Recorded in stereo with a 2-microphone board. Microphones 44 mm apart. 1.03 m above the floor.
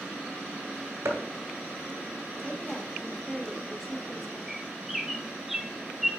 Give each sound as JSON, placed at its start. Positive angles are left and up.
{"t": 1.1, "sound": "chopping", "side_deg": -70, "distance_m": 1.7}
{"t": 2.4, "sound": "a woman speaking", "side_deg": 10, "distance_m": 1.4}
{"t": 4.5, "sound": "a bird", "side_deg": -5, "distance_m": 0.7}